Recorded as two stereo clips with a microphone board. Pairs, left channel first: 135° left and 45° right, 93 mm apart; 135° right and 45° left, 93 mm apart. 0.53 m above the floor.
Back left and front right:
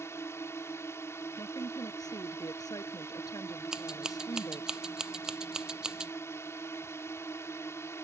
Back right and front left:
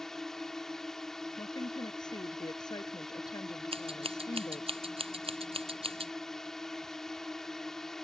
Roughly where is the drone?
Behind left.